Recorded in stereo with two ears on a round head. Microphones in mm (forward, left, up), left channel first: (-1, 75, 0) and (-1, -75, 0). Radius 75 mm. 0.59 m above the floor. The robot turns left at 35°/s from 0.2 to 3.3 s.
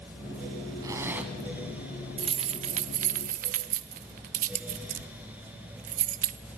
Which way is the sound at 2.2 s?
30° right (ahead or behind).